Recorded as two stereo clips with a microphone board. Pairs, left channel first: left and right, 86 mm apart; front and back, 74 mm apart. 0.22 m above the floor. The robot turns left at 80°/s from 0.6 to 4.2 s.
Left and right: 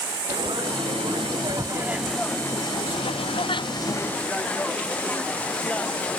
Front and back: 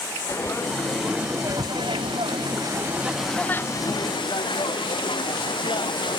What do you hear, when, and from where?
0.3 s frying: 60° right; by 6.2 s 15° left